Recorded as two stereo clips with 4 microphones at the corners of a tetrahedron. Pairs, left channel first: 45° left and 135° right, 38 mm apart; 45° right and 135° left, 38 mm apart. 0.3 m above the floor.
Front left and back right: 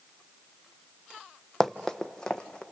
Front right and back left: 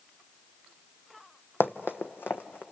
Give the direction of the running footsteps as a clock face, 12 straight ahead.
1 o'clock.